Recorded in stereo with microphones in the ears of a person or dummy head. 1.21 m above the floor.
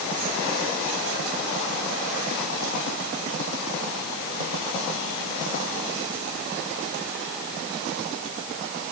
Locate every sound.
Only background noise.